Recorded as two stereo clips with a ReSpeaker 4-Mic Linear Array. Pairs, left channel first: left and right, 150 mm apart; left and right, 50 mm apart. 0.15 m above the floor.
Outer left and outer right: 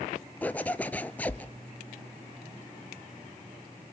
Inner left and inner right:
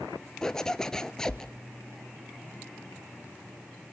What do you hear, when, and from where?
0.4 s a zipper: 10° left (ahead or behind), 0.6 m